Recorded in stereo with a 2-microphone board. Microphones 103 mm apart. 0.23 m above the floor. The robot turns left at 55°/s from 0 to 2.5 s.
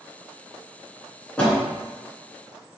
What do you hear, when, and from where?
1.4 s a door slam: 10° left (ahead or behind), 2.5 m; by 1.6 s 20° left (ahead or behind), 2.5 m